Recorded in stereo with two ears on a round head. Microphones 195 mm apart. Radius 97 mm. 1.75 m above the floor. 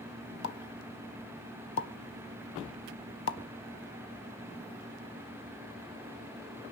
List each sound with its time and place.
0.4 s a pop: 65° left (ahead or behind), 1.2 m